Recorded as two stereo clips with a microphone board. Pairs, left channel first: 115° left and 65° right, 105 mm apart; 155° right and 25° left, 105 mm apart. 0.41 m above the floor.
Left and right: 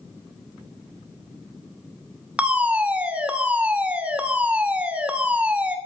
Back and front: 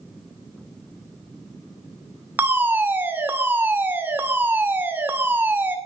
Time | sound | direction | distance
2.4 | a fire alarm | 10° right | 2.0 m